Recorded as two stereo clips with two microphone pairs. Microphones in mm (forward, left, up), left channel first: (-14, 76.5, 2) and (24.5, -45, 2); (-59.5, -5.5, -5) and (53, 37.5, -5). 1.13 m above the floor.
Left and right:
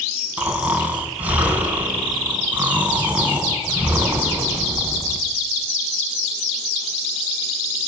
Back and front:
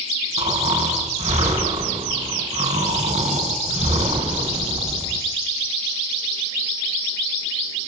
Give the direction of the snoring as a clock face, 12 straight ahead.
12 o'clock.